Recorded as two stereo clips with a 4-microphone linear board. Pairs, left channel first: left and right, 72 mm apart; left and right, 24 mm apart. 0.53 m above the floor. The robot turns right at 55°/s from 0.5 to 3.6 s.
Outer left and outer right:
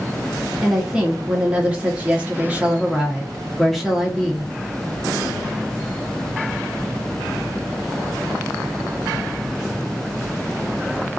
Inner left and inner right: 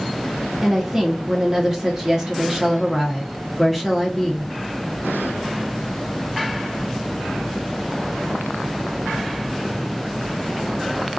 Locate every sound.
0.6 s a woman speaking: 5° right (ahead or behind), 0.9 m; by 4.5 s centre (ahead or behind), 0.9 m